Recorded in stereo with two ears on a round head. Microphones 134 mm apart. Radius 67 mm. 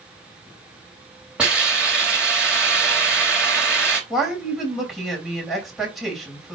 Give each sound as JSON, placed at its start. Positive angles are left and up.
{"t": 1.4, "sound": "a hiss", "side_deg": -5, "distance_m": 3.0}
{"t": 4.1, "sound": "a woman speaking", "side_deg": 0, "distance_m": 3.5}